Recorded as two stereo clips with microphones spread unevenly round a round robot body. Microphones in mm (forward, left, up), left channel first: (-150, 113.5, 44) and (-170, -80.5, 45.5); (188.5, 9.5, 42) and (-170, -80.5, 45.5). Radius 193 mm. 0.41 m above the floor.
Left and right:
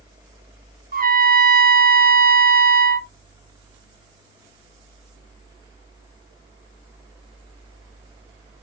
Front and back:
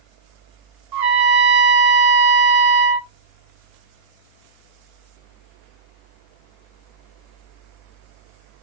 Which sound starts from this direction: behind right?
A trumpet, at 0.9 s.